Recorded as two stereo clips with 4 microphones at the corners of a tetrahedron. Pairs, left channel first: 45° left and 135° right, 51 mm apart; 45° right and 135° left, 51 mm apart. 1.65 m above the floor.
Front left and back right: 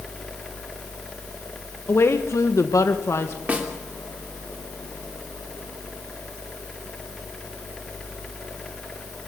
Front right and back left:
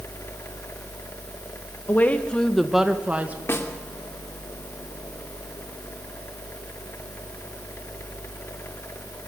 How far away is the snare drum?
About 2.5 m.